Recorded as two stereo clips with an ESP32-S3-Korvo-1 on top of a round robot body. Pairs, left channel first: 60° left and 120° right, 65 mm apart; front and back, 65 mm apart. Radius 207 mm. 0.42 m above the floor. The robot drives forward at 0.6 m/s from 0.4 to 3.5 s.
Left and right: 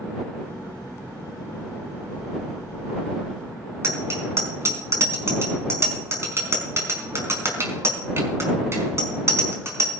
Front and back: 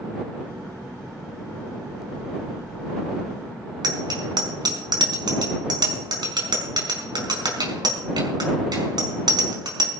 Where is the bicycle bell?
170° right, 5 m.